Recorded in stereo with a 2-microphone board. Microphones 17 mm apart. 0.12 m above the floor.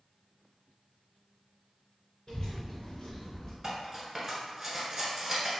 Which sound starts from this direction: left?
A child speaking, at 2.3 s.